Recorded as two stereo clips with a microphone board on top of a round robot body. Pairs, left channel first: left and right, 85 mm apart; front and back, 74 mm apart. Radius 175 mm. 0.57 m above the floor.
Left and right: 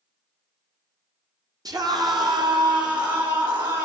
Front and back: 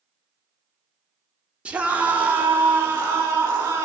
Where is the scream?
110° right, 1.1 m; by 3.9 s 125° right, 2.5 m.